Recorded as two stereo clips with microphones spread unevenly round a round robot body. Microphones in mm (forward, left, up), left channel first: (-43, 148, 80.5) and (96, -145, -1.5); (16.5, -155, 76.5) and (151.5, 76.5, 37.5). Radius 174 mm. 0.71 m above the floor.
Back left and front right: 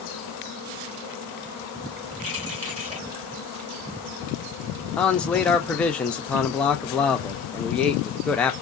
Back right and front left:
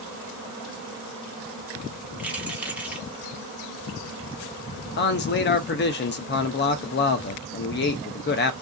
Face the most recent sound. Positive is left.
turn(degrees=-135)